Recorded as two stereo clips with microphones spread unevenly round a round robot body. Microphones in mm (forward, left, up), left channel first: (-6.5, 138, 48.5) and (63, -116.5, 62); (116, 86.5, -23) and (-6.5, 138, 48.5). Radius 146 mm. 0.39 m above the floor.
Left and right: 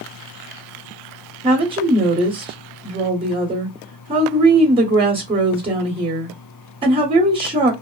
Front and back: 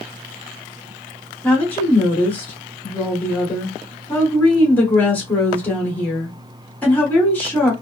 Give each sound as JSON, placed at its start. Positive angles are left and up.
{"t": 1.4, "sound": "a woman speaking", "azimuth_deg": -10, "distance_m": 1.2}